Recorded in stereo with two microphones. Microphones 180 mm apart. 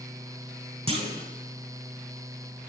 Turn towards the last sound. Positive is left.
turn(degrees=-35)  # may be behind; listen again after turning